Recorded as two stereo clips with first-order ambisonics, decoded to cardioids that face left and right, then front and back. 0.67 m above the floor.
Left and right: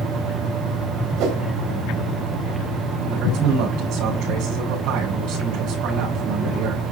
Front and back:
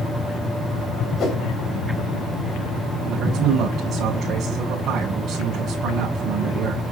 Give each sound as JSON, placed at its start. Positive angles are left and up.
{"t": 1.2, "sound": "a whoosh", "azimuth_deg": -55, "distance_m": 3.0}
{"t": 3.1, "sound": "a man speaking", "azimuth_deg": -120, "distance_m": 5.0}